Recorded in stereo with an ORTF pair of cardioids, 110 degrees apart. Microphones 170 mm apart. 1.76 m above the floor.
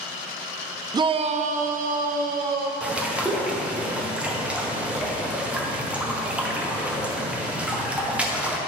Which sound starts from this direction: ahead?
A bird, at 2.8 s.